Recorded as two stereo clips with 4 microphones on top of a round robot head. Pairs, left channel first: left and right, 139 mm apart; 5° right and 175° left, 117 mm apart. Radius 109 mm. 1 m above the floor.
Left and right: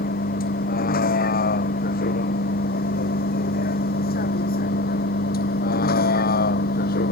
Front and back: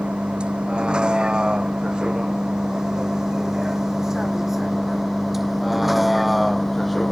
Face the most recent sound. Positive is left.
turn(degrees=85)